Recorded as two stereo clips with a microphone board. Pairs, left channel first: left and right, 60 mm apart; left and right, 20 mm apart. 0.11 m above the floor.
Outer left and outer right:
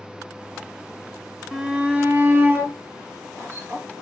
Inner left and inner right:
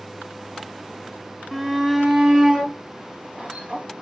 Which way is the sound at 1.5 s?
5° right (ahead or behind).